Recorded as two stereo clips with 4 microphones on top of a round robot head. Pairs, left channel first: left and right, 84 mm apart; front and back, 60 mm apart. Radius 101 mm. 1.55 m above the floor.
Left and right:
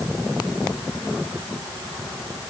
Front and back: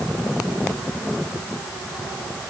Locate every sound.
Only background noise.